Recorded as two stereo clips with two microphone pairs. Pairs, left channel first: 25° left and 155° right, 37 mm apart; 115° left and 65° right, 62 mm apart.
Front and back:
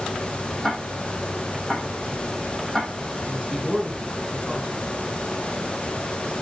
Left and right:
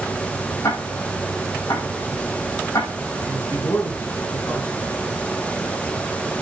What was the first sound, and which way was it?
Ticking, 110° left.